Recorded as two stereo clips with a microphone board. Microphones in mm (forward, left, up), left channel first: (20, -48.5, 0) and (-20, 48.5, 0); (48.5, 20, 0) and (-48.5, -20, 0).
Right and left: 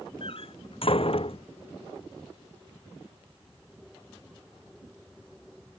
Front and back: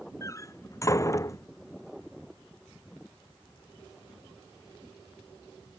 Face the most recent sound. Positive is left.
turn(degrees=-35)